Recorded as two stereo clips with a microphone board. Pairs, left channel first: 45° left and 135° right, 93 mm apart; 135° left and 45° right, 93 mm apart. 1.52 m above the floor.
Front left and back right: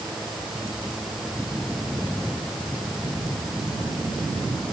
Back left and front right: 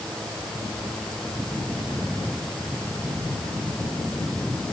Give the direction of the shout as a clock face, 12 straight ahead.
I don't hear a shout.